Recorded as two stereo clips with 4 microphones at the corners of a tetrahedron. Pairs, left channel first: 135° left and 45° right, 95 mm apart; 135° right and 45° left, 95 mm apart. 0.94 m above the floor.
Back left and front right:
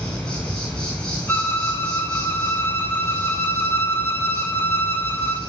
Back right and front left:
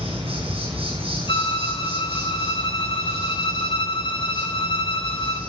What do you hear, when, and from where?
0.0 s an insect: 55° left, 8.5 m
1.3 s a violin: 160° right, 2.5 m